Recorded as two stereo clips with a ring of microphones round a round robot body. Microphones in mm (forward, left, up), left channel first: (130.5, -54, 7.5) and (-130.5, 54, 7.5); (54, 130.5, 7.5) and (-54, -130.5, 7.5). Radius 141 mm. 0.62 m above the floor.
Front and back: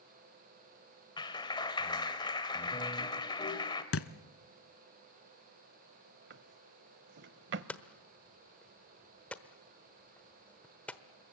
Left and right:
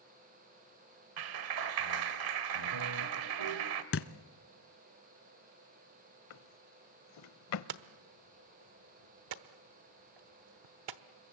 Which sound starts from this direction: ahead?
A thud, at 3.9 s.